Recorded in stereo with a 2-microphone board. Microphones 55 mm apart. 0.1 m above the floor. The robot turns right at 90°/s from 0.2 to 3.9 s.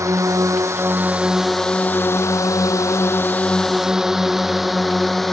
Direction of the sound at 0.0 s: 70° right (ahead or behind).